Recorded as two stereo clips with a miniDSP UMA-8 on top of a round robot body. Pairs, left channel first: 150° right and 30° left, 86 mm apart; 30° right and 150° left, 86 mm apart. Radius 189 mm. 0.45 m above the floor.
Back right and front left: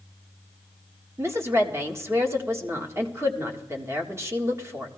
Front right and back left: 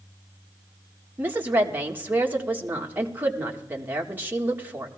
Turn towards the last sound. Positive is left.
turn(degrees=85)